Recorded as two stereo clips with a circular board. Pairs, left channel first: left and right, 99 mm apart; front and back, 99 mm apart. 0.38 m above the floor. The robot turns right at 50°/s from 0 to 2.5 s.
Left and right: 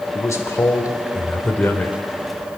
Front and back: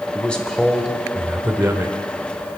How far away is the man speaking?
About 1.1 m.